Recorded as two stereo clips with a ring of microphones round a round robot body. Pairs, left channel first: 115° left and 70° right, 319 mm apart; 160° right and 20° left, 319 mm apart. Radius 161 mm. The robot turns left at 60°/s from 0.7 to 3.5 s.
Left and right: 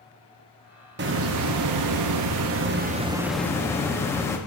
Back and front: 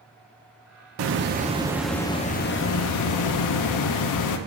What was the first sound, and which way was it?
A hiss, 15° right.